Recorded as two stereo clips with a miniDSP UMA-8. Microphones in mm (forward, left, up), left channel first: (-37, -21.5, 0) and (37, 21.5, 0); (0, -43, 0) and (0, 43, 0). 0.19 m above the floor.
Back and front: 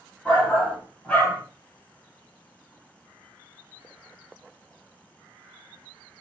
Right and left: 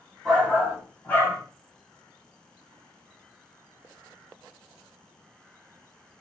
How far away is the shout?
About 1.2 m.